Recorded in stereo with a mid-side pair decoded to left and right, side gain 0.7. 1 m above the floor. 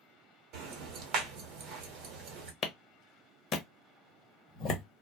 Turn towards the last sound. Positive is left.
turn(degrees=45)